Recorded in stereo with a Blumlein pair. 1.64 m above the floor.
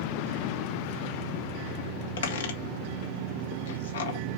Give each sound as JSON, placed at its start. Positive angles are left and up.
{"t": 2.2, "sound": "a squeak", "azimuth_deg": 60, "distance_m": 2.5}